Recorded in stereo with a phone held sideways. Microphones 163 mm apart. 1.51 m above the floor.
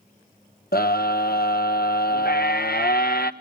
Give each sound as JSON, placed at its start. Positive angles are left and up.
{"t": 0.7, "sound": "a scream", "side_deg": 70, "distance_m": 1.2}